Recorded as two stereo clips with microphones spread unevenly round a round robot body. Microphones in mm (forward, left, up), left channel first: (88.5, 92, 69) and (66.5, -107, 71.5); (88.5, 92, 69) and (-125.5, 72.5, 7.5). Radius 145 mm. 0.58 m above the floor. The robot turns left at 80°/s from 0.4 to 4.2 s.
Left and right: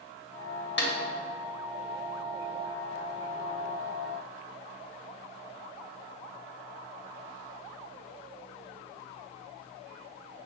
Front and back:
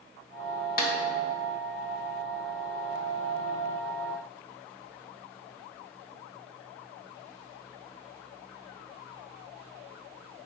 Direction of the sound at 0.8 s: 55° left.